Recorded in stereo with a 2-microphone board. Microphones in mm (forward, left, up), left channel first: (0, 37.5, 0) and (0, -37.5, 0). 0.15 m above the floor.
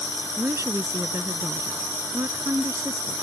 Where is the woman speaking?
40° right (ahead or behind).